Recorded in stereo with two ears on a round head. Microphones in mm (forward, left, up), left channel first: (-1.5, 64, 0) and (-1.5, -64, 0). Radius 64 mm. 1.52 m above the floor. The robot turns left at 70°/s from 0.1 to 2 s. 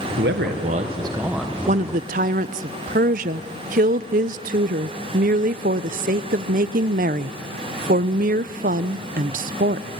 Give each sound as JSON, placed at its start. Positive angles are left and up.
{"t": 0.2, "sound": "a man speaking", "azimuth_deg": -90, "distance_m": 1.2}
{"t": 1.7, "sound": "a woman speaking", "side_deg": -50, "distance_m": 0.5}